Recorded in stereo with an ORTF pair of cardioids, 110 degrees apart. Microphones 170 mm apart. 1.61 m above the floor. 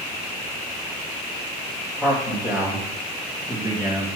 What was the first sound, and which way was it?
A man speaking, 10° right.